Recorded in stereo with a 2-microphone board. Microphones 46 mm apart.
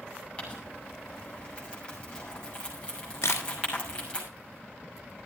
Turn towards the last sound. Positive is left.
turn(degrees=70)  # may be behind; listen again after turning